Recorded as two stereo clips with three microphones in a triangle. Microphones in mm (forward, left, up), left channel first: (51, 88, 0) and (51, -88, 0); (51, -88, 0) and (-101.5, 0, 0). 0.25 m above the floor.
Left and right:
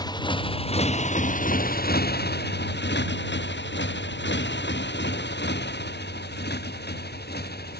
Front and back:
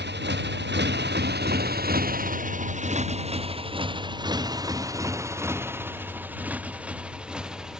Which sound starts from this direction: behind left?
A motorcycle, at 0.0 s.